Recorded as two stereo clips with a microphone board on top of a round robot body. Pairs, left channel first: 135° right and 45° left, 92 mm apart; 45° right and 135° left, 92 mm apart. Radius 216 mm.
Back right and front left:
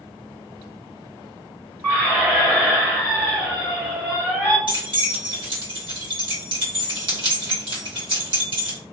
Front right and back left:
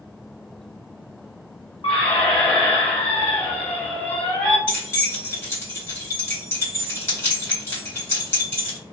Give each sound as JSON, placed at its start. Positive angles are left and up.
{"t": 1.8, "sound": "a squeak", "azimuth_deg": -20, "distance_m": 1.6}
{"t": 4.7, "sound": "keys jangling", "azimuth_deg": 20, "distance_m": 2.0}